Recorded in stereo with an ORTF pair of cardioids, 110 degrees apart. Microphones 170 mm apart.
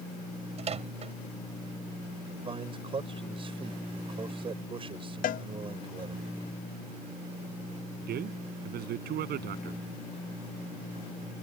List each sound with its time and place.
0.6 s a microwave: 40° right
2.4 s a man speaking: 30° right
5.2 s a cowbell: 55° left
8.0 s a man speaking: 70° right